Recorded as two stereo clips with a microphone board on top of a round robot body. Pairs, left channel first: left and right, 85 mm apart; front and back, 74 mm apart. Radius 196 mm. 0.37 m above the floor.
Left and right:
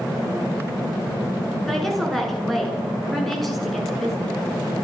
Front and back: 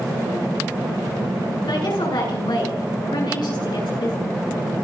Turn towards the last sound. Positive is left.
turn(degrees=0)